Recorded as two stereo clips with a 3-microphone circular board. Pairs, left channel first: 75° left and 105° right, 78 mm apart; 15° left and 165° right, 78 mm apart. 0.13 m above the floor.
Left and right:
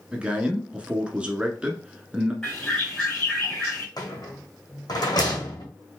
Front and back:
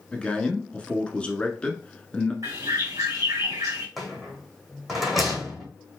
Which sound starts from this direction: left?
A rattle, at 4.0 s.